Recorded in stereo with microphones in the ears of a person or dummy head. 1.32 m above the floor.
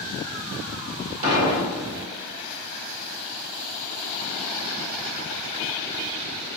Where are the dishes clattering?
40° right (ahead or behind), 1.2 m.